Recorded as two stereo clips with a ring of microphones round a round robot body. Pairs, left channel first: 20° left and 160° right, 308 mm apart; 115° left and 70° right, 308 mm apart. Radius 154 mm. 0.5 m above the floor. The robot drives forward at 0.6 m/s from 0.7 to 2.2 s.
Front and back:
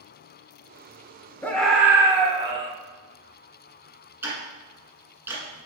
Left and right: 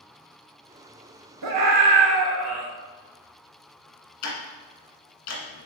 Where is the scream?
60° right, 1.3 m; by 2.7 s 85° right, 1.2 m.